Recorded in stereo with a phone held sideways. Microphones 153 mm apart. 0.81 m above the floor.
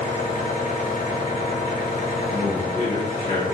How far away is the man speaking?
About 2.5 m.